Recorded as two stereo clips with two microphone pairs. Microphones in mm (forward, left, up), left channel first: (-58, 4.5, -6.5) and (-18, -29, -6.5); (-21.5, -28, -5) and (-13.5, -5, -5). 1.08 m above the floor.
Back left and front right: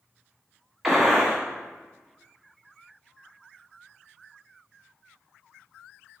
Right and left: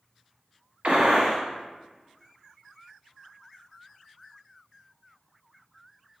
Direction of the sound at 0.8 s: 45° left.